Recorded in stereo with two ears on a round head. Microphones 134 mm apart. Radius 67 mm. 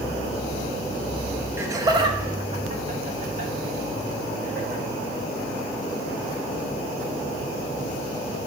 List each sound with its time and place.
1.6 s laughter: 15° right (ahead or behind), 0.9 m; by 4.8 s 60° right (ahead or behind), 1.9 m